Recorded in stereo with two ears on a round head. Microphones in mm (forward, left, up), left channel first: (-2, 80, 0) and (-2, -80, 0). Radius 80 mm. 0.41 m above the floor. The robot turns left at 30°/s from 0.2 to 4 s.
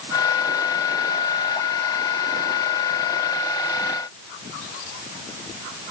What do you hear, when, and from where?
Only background noise.